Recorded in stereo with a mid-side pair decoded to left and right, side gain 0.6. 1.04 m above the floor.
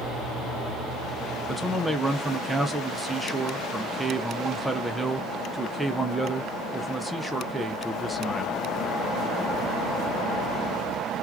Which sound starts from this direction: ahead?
A man speaking, at 1.5 s.